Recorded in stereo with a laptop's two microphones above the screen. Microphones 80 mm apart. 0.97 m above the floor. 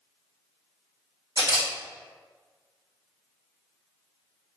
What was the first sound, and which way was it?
A camera shutter, 60° right (ahead or behind).